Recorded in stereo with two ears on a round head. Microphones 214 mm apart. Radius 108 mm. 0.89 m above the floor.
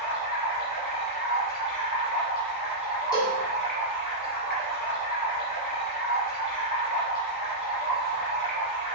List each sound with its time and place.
0.0 s running water: 40° left (ahead or behind), 3.5 m
3.1 s a cowbell: 15° left (ahead or behind), 2.5 m